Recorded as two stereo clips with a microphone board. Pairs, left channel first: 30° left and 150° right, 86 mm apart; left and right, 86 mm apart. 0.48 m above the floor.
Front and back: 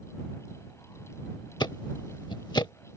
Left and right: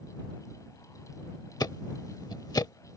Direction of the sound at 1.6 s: 55° left.